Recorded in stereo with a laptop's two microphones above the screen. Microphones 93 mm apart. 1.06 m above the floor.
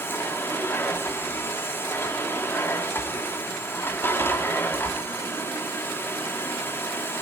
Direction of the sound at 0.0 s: 25° left (ahead or behind).